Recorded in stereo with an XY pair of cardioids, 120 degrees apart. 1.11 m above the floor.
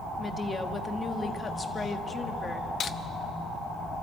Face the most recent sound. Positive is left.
turn(degrees=45)